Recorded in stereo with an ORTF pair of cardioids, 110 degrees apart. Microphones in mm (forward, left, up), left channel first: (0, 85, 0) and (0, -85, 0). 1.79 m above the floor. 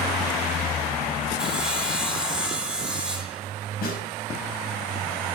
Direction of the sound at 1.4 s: 5° right.